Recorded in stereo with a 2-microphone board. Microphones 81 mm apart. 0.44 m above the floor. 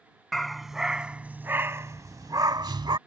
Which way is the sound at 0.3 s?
5° left (ahead or behind).